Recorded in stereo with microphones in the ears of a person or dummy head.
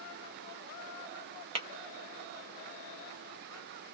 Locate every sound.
1.6 s tapping: 30° right (ahead or behind), 0.8 m